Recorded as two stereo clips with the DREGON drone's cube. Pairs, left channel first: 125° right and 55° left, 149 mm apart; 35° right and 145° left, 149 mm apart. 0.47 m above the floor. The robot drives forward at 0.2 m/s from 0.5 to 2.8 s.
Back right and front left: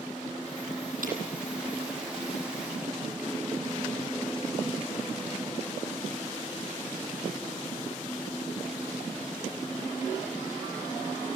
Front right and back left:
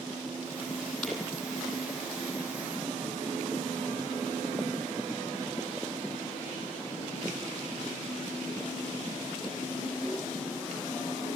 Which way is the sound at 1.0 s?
55° left.